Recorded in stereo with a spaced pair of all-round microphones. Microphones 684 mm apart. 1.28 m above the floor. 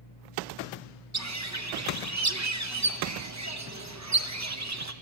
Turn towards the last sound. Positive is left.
turn(degrees=-25)  # may be behind; listen again after turning